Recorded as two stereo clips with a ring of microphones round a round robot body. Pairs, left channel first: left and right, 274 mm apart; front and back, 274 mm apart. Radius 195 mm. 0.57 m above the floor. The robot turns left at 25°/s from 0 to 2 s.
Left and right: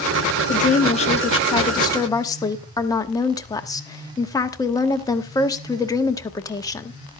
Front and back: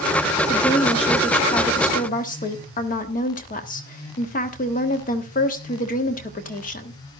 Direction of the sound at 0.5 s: 60° left.